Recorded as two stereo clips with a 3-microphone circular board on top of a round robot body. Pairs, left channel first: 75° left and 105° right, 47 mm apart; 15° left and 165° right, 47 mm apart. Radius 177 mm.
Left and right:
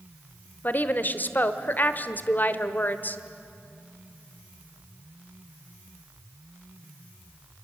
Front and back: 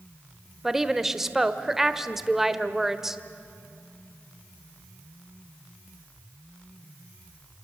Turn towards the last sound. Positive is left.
turn(degrees=115)